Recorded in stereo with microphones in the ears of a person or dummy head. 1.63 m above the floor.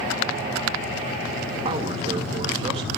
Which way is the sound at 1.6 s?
35° right (ahead or behind).